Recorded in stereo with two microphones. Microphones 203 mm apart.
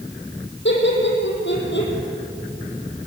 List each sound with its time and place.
0.7 s laughter: 65° left (ahead or behind), 5.5 m